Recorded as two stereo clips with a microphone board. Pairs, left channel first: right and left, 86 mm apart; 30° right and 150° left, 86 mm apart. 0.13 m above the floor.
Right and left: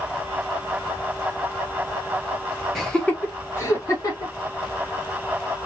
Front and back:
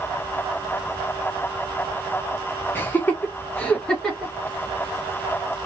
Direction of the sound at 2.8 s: 10° right.